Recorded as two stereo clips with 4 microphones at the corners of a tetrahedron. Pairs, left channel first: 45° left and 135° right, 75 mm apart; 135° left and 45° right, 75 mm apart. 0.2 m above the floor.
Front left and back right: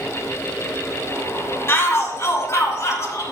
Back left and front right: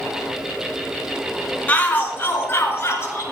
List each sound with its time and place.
1.7 s a shout: 80° left, 2 m; by 3.2 s 85° left, 3.5 m